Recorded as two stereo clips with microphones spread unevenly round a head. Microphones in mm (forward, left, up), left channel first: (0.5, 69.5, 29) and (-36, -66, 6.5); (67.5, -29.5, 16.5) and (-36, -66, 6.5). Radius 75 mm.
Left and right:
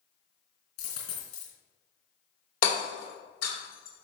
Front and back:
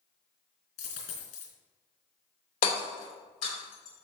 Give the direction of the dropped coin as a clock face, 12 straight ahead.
11 o'clock.